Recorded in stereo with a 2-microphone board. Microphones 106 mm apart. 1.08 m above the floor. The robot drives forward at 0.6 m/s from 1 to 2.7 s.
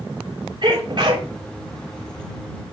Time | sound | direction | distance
0.6 | a sneeze | 50° right (ahead or behind) | 3 m